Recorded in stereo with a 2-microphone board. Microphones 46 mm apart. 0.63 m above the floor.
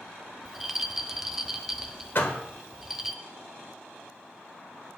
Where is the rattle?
5° right (ahead or behind), 0.7 m.